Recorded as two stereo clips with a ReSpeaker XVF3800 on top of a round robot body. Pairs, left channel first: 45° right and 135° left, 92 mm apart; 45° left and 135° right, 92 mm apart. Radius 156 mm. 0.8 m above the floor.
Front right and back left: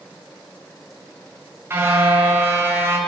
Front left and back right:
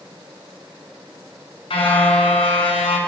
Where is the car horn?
70° left, 5.5 m.